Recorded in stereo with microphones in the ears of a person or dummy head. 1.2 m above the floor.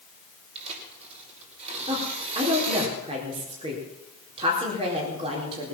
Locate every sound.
0.6 s tearing paper: 30° right (ahead or behind), 5.5 m
1.9 s a woman speaking: 30° right (ahead or behind), 4 m